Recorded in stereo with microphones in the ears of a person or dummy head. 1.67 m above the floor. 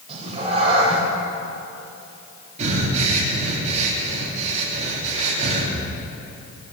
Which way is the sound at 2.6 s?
40° right (ahead or behind).